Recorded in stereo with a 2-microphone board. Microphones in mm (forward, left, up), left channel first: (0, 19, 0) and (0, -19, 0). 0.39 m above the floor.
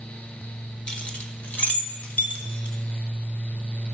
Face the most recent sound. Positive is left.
turn(degrees=45)  # may be behind; listen again after turning